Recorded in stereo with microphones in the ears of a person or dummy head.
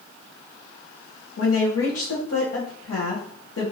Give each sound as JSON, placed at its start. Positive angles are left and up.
{"t": 1.4, "sound": "a woman speaking", "side_deg": 70, "distance_m": 1.0}